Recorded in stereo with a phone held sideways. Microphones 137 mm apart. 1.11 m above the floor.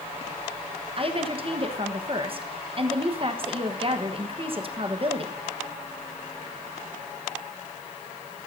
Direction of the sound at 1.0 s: 40° right (ahead or behind).